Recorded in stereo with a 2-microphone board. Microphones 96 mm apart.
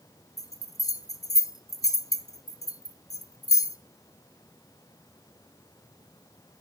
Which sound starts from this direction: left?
A bell, at 0.4 s.